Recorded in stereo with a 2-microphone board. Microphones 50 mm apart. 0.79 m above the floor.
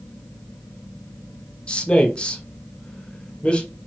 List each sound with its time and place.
1.7 s a man speaking: 20° left (ahead or behind), 0.7 m